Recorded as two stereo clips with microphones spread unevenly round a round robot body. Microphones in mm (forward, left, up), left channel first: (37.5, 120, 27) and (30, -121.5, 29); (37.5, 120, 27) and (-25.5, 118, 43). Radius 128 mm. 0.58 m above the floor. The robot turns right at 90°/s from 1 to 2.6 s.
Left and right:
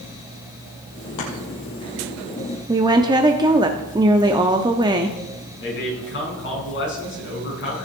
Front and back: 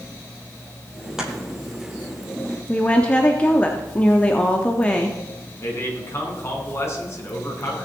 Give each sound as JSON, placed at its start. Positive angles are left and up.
{"t": 1.2, "sound": "chopping", "azimuth_deg": 100, "distance_m": 3.5}
{"t": 2.7, "sound": "a woman speaking", "azimuth_deg": -30, "distance_m": 0.9}
{"t": 5.6, "sound": "a man speaking", "azimuth_deg": 45, "distance_m": 5.0}